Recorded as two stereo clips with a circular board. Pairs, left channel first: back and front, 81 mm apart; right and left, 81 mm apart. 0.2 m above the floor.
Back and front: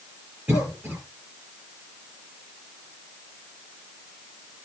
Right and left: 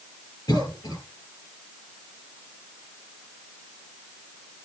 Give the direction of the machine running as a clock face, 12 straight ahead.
I don't hear a machine running.